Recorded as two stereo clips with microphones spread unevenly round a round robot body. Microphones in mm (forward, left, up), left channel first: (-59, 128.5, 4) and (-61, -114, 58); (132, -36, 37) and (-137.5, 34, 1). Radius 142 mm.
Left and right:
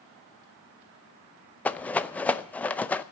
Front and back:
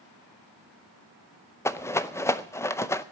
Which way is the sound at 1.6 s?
70° left.